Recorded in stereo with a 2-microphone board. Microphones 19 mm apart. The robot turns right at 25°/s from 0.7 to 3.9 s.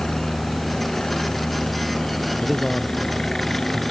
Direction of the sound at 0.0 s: 65° left (ahead or behind).